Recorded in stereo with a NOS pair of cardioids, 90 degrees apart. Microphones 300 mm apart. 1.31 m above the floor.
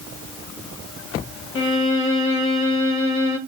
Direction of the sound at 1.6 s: 45° left.